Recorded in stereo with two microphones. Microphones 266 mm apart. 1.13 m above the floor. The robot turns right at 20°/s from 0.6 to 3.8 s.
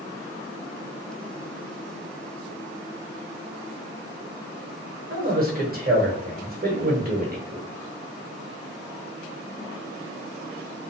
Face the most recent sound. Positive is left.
turn(degrees=-35)  # may be behind; listen again after turning